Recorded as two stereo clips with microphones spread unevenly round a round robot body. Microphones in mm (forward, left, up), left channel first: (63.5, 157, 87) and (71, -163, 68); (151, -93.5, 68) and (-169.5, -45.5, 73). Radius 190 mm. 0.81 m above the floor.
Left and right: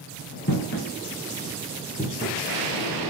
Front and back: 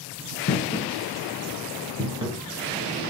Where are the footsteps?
45° left, 1.2 m; by 2.4 s 155° left, 0.8 m.